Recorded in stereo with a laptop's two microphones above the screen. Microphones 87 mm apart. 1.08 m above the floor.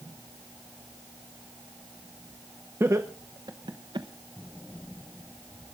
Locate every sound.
2.8 s laughter: 30° right (ahead or behind), 0.8 m; by 4.1 s 65° right (ahead or behind), 1.1 m